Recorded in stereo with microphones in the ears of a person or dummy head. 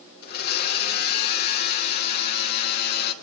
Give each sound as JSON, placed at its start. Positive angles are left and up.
{"t": 0.2, "sound": "a blender", "side_deg": 50, "distance_m": 2.0}